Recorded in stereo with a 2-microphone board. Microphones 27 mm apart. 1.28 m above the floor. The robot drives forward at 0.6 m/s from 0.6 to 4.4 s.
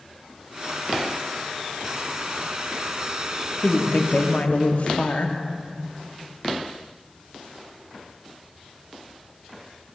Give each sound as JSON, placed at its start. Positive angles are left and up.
{"t": 3.6, "sound": "a woman speaking", "side_deg": 50, "distance_m": 0.9}